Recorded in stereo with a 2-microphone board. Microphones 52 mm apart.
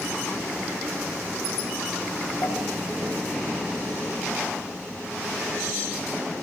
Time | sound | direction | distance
2.4 | a pop | 85° left | 10 m